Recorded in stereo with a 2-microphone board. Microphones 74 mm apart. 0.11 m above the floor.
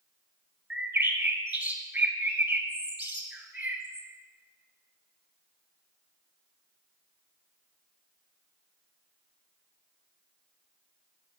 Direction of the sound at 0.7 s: 20° right (ahead or behind).